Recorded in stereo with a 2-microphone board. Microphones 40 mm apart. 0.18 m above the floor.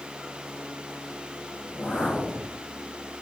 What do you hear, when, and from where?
1.6 s a whoosh: 35° left (ahead or behind), 5 m